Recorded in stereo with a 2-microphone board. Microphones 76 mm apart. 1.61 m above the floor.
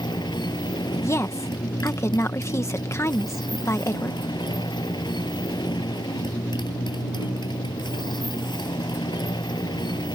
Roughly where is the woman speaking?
Left.